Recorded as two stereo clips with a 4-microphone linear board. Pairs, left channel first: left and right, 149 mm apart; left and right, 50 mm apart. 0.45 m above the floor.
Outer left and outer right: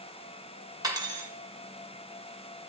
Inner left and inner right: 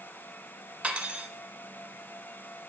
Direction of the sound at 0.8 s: 25° right (ahead or behind).